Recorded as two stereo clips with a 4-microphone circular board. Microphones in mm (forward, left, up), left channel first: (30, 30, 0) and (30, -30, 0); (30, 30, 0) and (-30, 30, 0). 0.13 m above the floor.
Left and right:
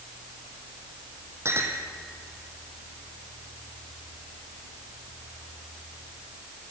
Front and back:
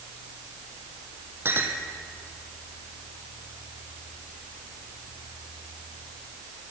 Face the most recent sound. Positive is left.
turn(degrees=-130)